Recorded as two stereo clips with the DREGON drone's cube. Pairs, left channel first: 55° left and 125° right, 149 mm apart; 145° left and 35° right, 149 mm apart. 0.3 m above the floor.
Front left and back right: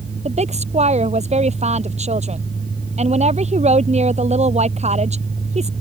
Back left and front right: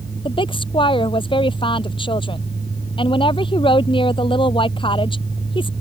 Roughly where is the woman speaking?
Behind.